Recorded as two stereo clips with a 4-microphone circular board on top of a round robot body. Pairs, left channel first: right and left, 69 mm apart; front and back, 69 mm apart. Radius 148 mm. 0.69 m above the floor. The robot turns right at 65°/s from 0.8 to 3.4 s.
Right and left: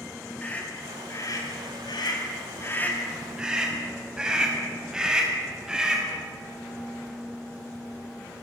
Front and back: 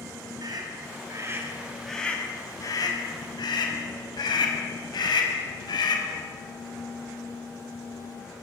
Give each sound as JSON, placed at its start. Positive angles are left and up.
{"t": 0.4, "sound": "a scream", "azimuth_deg": -160, "distance_m": 6.5}